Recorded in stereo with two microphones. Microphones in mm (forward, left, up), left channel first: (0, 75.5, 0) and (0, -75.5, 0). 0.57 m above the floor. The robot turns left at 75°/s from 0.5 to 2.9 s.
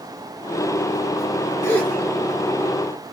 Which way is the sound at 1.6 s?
20° left (ahead or behind).